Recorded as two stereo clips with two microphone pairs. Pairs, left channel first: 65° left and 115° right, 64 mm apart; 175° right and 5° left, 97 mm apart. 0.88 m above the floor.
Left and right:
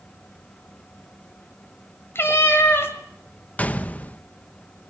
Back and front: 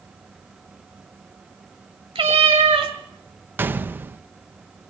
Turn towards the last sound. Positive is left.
turn(degrees=40)